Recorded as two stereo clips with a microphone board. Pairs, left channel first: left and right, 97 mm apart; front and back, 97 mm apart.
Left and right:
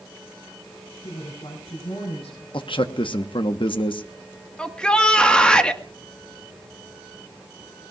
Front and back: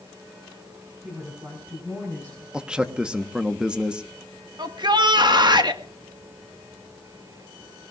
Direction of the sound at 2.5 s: 100° left.